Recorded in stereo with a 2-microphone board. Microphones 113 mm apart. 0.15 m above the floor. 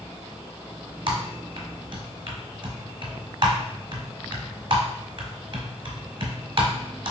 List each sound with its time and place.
1.1 s typing on a keyboard: 50° right (ahead or behind), 0.9 m